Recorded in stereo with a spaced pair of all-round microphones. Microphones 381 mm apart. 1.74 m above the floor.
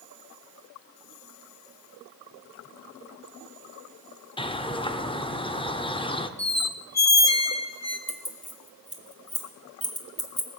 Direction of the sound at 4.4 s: 15° left (ahead or behind).